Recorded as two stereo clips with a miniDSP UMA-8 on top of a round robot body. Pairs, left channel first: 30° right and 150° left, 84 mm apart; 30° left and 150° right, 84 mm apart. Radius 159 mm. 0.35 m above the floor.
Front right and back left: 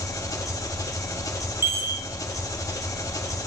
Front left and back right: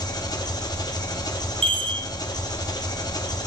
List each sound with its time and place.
0.0 s an engine running: 10° left, 1.1 m
1.6 s a chime: 145° right, 0.8 m